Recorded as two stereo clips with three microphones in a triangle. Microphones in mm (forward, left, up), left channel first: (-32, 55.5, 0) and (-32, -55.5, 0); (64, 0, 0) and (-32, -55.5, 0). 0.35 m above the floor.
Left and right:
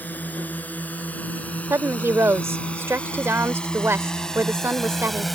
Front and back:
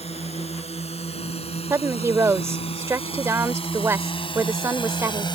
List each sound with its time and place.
0.0 s a drone: 15° left; by 5.3 s straight ahead
1.7 s a woman speaking: 125° right